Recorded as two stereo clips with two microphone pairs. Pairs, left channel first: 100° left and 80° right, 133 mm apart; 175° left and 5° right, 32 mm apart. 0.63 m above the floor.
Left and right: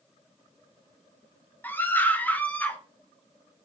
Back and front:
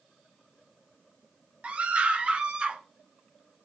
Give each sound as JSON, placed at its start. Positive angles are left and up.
{"t": 1.6, "sound": "a scream", "azimuth_deg": 30, "distance_m": 1.6}